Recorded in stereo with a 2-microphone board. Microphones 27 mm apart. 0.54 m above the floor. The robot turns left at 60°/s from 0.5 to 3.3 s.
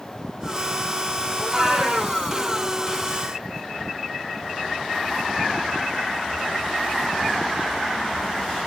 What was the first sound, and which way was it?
A cat meowing, 10° right.